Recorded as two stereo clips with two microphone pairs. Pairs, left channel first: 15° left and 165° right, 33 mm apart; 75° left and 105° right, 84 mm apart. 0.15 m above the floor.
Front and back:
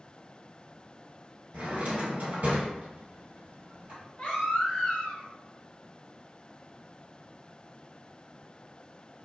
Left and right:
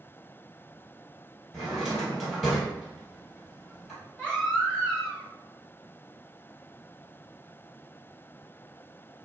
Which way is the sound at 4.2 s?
Straight ahead.